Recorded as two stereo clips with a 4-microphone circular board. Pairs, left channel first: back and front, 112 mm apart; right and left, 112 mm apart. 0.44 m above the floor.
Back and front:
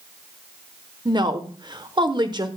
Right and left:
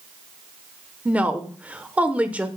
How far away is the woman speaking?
About 1.1 m.